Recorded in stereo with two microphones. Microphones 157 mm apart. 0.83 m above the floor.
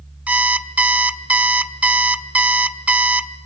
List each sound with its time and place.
0.3 s an alarm clock: 10° right (ahead or behind), 0.8 m